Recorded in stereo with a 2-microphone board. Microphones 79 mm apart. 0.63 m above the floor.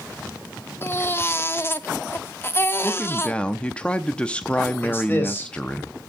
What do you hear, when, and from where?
0.8 s a baby crying: 30° left (ahead or behind), 0.8 m
2.8 s a man speaking: 15° left (ahead or behind), 0.7 m
4.8 s a man speaking: 25° left (ahead or behind), 4 m